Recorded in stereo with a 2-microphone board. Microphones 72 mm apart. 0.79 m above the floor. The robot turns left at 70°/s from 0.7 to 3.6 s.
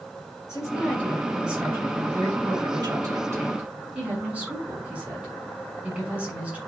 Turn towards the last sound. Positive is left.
turn(degrees=-160)